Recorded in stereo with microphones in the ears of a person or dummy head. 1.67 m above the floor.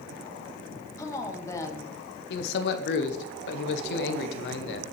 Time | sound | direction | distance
1.0 | a woman speaking | 20° left (ahead or behind) | 1.1 m
2.3 | a man speaking | 65° left (ahead or behind) | 0.9 m